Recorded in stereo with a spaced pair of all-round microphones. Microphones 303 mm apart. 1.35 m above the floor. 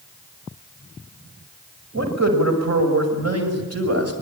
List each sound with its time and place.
1.9 s a man speaking: 65° right (ahead or behind), 6 m; by 4.1 s 50° right (ahead or behind), 6.5 m